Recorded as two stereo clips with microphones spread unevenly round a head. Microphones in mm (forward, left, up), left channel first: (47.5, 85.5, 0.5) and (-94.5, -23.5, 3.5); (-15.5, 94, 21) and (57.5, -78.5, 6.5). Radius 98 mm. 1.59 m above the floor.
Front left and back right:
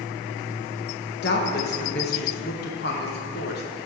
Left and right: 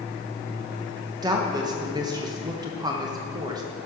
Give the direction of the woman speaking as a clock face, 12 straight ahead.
12 o'clock.